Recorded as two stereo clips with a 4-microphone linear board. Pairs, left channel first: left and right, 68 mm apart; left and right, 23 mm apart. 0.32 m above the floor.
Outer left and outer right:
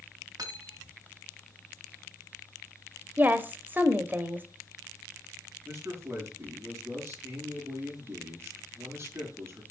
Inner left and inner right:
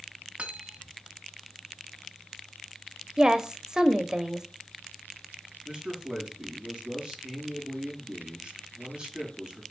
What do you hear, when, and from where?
0.4 s cutlery clinking: 65° right (ahead or behind), 1.7 m
3.2 s a woman speaking: 30° right (ahead or behind), 0.9 m
5.7 s a man speaking: 40° right (ahead or behind), 4.5 m